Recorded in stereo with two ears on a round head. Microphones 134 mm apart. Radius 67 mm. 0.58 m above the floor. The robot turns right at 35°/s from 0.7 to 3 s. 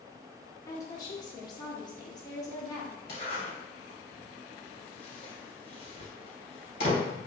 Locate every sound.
0.7 s a woman speaking: 25° left (ahead or behind), 0.7 m; by 3.0 s 20° left (ahead or behind), 0.7 m
3.1 s a zipper: 40° left (ahead or behind), 1.9 m